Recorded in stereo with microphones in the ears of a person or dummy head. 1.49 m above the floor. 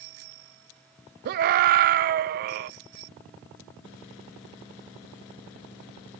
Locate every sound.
1.2 s a scream: 50° right (ahead or behind), 0.8 m